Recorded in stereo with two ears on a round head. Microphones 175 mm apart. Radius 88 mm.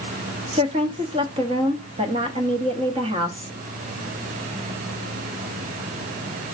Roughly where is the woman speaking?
Right.